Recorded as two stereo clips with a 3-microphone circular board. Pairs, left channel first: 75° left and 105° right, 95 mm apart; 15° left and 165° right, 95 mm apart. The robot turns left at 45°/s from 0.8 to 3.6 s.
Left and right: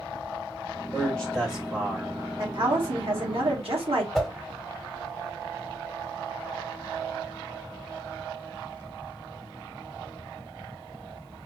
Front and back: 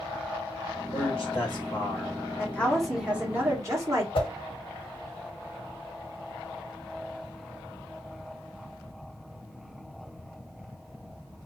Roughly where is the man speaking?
Ahead.